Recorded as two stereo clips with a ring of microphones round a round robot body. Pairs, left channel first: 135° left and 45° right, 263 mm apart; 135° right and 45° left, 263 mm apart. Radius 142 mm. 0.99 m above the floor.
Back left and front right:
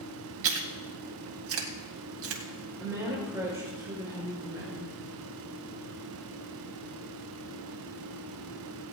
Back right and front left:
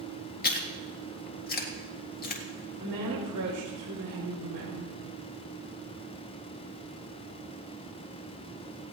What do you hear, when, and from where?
0.4 s chewing: 80° right, 1.8 m
2.8 s a woman speaking: 35° left, 5 m